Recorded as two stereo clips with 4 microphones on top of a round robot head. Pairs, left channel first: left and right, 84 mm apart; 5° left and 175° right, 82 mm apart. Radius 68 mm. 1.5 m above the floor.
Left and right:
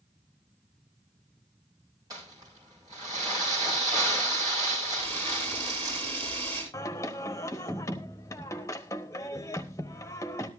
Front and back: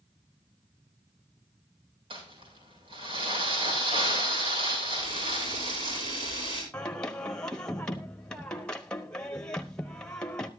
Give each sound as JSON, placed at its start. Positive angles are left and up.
{"t": 2.1, "sound": "crumpling", "azimuth_deg": -150, "distance_m": 6.0}
{"t": 5.0, "sound": "a camera shutter", "azimuth_deg": -140, "distance_m": 7.0}
{"t": 6.7, "sound": "singing", "azimuth_deg": 75, "distance_m": 0.9}